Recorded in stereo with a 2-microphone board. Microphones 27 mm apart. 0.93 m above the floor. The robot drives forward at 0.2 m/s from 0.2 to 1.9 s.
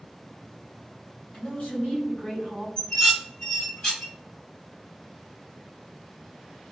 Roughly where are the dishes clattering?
Left.